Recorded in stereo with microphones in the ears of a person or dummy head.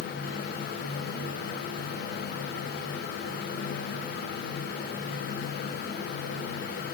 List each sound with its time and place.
Only background noise.